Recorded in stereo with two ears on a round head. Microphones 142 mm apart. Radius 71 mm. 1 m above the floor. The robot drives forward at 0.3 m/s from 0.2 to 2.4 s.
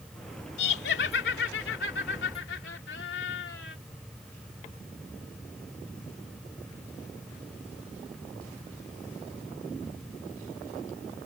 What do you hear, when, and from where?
0.6 s laughter: 75° left (ahead or behind); by 3.8 s 80° left